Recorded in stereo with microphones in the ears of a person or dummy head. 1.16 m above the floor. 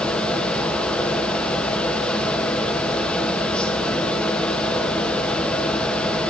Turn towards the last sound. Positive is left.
turn(degrees=5)  # may be behind; listen again after turning